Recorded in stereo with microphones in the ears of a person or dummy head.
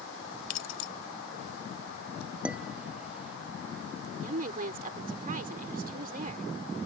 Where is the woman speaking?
45° right (ahead or behind).